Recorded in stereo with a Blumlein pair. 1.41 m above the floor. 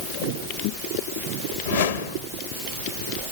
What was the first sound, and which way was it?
A whoosh, 65° left.